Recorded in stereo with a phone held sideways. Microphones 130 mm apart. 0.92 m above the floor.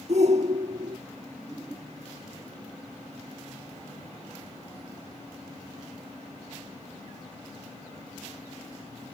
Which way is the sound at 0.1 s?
55° right (ahead or behind).